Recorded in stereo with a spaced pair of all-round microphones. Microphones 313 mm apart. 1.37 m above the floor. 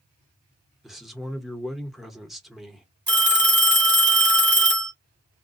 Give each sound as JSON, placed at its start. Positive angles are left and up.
{"t": 0.8, "sound": "a man speaking", "side_deg": 0, "distance_m": 0.9}
{"t": 3.1, "sound": "a phone ringing", "side_deg": -70, "distance_m": 1.7}